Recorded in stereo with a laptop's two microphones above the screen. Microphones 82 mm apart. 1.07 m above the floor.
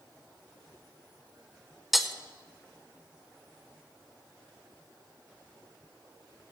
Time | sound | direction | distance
1.9 | breaking glass | centre (ahead or behind) | 0.9 m